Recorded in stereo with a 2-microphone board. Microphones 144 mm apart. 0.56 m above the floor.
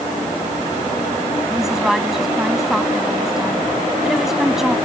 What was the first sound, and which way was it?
A woman speaking, 5° right (ahead or behind).